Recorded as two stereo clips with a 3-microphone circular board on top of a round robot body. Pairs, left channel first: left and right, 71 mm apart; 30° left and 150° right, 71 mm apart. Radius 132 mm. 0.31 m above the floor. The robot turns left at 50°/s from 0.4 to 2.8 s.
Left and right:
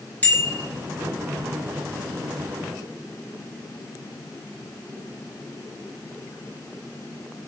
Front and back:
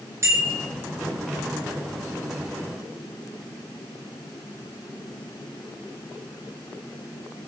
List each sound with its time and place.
0.2 s a bicycle bell: 155° left, 5.5 m; by 0.6 s 145° left, 5.5 m